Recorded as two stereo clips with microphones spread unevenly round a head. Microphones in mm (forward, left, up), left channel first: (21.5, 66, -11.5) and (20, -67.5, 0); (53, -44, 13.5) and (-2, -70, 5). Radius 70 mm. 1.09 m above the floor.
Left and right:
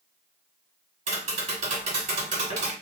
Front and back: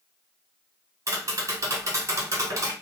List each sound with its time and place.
1.1 s tapping: 125° right, 1.9 m